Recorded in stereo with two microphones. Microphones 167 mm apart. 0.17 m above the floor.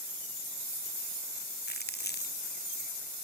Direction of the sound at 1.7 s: 80° left.